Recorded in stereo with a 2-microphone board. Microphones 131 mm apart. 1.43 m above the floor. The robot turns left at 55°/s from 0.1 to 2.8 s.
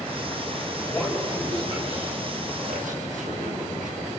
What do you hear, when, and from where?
0.8 s a man speaking: 15° left (ahead or behind), 8.5 m; by 4.1 s 85° right, 8.5 m